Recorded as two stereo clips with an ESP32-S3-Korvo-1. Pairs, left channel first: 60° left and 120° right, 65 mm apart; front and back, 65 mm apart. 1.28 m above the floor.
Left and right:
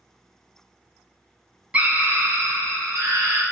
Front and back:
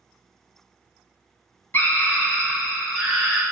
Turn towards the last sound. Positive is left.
turn(degrees=-95)